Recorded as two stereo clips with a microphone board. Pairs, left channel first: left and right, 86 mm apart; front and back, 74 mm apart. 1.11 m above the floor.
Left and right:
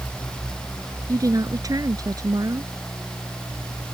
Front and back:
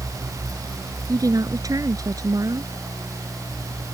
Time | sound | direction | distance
1.1 | a woman speaking | 140° right | ?